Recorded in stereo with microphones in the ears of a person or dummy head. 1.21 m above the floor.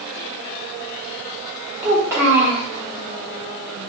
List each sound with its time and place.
1.8 s a child speaking: 10° right (ahead or behind), 0.8 m